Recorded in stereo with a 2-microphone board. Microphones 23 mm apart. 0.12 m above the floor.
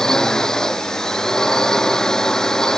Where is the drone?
25° left (ahead or behind).